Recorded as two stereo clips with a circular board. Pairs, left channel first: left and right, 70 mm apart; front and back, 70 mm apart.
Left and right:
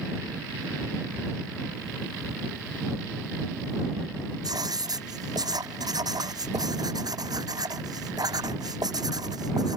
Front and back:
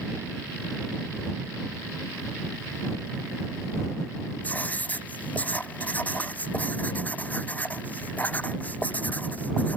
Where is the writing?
65° right.